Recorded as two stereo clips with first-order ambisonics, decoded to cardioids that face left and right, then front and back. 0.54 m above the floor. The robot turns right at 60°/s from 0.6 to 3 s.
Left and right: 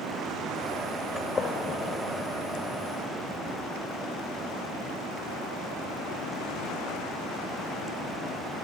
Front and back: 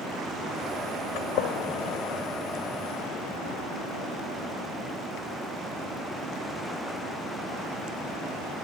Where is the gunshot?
10° left, 0.7 m; by 2.0 s 60° left, 0.7 m.